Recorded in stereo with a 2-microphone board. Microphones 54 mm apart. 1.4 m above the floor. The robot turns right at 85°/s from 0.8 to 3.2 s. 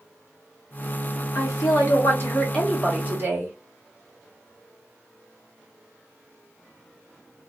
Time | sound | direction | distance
1.4 | a woman speaking | 65° left | 1.6 m